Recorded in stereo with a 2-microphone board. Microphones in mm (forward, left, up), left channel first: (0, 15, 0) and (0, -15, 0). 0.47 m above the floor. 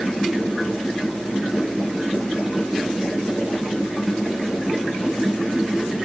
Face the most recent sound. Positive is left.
No sound to turn to.